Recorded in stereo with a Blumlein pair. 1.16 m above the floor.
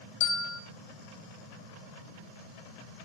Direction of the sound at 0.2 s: 40° left.